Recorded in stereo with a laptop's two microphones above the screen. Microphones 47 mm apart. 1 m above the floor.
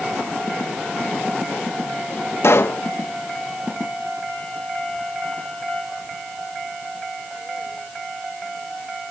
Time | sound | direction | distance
2.4 | a pop | 65° left (ahead or behind) | 0.7 m